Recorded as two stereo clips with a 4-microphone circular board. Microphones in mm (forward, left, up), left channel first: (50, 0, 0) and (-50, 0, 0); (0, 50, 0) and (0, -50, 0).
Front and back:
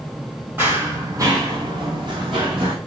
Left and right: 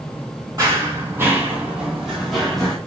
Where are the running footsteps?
120° right, 1.1 m; by 2.8 s 175° left, 1.5 m.